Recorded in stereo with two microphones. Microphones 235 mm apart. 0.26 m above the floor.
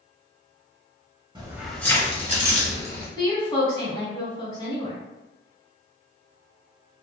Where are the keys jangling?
20° right (ahead or behind), 0.6 m; by 3.1 s 45° left (ahead or behind), 1.3 m.